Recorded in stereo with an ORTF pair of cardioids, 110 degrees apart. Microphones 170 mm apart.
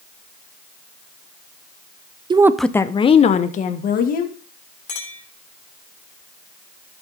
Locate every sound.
2.3 s a woman speaking: 25° right, 0.6 m; by 4.3 s 60° left, 1.9 m
4.9 s a clink: 50° left, 3 m